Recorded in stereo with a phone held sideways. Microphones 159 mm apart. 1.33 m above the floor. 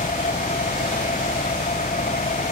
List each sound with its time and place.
0.0 s an engine running: 55° left (ahead or behind)